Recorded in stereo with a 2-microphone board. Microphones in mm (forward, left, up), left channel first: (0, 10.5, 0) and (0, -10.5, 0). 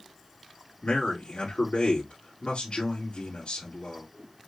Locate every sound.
0.8 s a man speaking: 65° left (ahead or behind), 2.5 m